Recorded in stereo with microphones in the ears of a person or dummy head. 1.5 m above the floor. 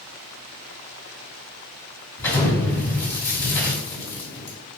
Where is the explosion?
15° left (ahead or behind), 1.6 m.